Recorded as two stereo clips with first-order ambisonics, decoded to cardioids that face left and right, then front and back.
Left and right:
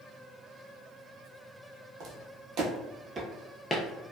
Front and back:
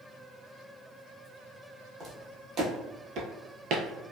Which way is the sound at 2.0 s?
120° right.